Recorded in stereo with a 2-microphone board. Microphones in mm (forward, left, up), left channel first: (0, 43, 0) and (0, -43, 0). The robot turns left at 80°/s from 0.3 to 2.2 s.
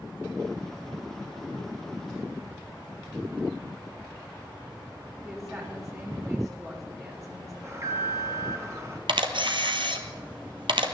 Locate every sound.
5.2 s a woman speaking: 35° right (ahead or behind), 3.5 m
7.6 s an alarm: 40° right (ahead or behind), 2.5 m
9.1 s a camera shutter: 75° right (ahead or behind), 1.3 m